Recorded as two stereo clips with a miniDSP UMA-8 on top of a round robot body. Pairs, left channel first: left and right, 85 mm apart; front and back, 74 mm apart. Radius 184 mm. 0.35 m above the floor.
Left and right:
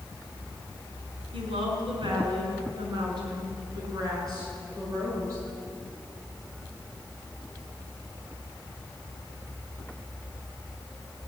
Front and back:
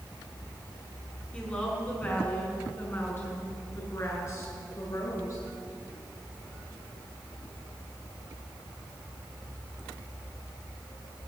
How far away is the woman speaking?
About 6.5 m.